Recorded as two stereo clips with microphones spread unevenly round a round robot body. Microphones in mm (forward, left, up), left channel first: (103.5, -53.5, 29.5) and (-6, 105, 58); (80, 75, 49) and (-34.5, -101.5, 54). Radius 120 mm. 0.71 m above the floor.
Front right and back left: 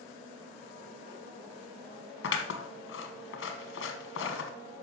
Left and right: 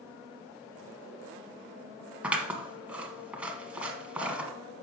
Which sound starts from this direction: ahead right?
Scissors, at 2.2 s.